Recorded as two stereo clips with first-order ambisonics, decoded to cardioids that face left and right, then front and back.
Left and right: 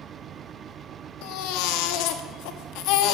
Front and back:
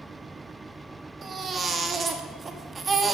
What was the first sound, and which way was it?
A baby crying, 110° left.